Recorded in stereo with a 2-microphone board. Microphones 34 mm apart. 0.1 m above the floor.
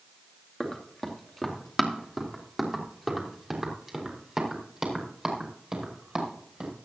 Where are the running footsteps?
15° left (ahead or behind), 2.5 m; by 6.7 s 20° right (ahead or behind), 5 m.